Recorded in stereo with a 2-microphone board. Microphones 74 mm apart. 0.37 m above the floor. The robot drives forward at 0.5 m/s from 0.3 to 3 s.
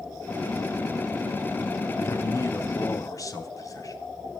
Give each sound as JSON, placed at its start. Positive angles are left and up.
{"t": 2.0, "sound": "a man speaking", "side_deg": 45, "distance_m": 3.0}